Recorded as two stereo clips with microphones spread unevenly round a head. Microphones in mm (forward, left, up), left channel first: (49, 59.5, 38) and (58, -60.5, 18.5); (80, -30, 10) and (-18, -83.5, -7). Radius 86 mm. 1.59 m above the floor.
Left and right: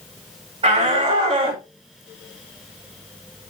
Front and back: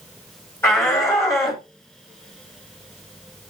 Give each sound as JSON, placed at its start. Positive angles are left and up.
{"t": 0.6, "sound": "a shout", "azimuth_deg": -40, "distance_m": 5.5}